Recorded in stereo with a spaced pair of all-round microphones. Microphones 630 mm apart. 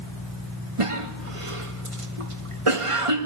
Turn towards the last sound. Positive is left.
turn(degrees=-55)  # may be behind; listen again after turning